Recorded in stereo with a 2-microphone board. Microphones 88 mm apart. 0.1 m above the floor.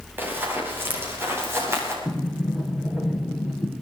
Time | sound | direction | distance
0.2 | running footsteps | 25° right (ahead or behind) | 8.5 m
2.0 | a sliding door | centre (ahead or behind) | 7.5 m